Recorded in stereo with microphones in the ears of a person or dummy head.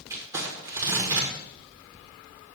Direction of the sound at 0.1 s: 20° right (ahead or behind).